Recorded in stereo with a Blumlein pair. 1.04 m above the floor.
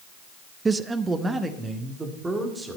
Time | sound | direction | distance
0.7 | a man speaking | 15° right | 0.5 m